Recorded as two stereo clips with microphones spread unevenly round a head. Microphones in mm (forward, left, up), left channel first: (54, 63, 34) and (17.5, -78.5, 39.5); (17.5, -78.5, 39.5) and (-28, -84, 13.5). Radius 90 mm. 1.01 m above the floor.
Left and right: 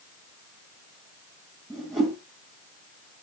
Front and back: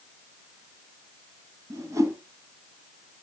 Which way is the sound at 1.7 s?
165° left.